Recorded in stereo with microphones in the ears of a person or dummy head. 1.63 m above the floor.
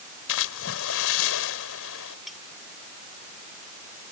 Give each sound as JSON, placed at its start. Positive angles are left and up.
{"t": 0.3, "sound": "a splash", "side_deg": 75}
{"t": 2.3, "sound": "cutlery clinking", "side_deg": 0}